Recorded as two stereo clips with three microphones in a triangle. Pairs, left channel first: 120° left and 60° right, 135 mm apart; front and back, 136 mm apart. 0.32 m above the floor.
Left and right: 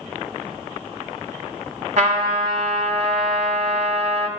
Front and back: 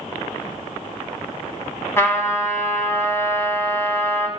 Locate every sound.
2.0 s a trumpet: 70° right, 1.5 m